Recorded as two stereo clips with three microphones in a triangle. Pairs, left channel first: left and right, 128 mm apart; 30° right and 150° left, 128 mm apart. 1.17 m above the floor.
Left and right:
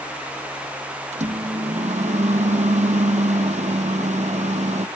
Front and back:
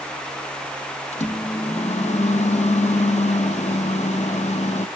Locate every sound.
1.1 s a microwave: 60° right, 0.8 m